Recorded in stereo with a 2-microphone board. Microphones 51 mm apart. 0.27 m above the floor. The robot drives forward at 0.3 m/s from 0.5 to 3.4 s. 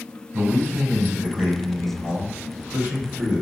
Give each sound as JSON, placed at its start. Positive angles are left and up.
{"t": 0.3, "sound": "a man speaking", "side_deg": -40, "distance_m": 1.4}